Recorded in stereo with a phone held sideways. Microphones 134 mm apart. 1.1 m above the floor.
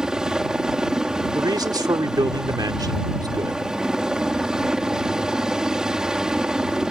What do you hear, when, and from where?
0.0 s a helicopter: 5° right (ahead or behind)
1.4 s a man speaking: 30° right (ahead or behind)